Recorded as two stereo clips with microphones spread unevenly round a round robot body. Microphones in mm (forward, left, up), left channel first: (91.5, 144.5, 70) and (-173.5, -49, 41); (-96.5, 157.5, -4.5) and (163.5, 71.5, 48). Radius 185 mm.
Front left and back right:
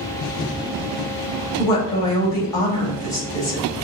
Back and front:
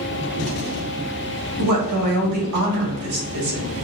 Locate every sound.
1.6 s a woman speaking: 45° right, 2.0 m